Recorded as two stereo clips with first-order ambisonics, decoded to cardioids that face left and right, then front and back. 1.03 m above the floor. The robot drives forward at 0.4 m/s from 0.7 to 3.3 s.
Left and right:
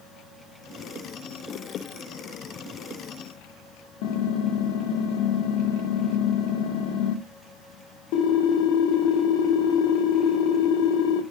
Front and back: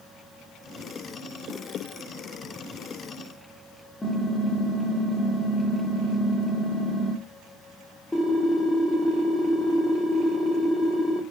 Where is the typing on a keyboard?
80° left, 1.6 m.